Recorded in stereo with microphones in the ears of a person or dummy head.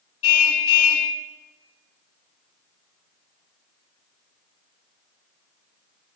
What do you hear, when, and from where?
0.2 s a car horn: 75° left (ahead or behind), 4.5 m